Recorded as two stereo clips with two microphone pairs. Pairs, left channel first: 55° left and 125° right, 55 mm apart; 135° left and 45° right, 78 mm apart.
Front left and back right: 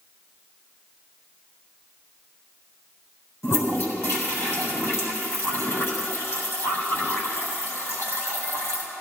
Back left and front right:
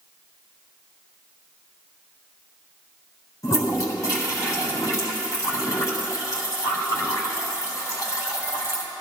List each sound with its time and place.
3.4 s a toilet flushing: 85° left, 3.5 m